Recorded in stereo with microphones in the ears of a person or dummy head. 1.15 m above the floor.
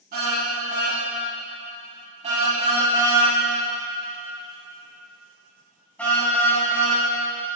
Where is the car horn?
50° right (ahead or behind), 5.5 m; by 7.0 s 20° left (ahead or behind), 5.5 m.